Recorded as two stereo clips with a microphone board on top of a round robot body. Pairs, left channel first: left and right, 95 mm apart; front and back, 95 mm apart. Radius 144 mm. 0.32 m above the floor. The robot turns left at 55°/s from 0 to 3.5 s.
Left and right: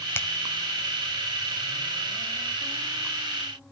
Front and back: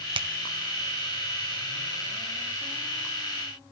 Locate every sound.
0.1 s a finger snap: 155° left, 1.8 m; by 0.3 s 150° left, 1.8 m